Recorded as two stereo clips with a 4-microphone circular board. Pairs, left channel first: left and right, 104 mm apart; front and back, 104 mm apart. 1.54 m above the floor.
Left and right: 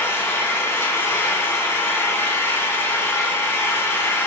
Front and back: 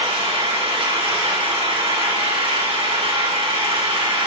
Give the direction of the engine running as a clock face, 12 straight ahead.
7 o'clock.